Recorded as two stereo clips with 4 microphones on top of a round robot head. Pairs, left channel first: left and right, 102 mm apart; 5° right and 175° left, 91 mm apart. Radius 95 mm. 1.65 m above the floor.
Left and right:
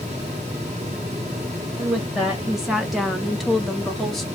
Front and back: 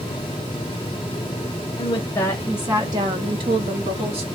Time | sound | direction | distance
1.8 | a woman speaking | 5° right | 0.6 m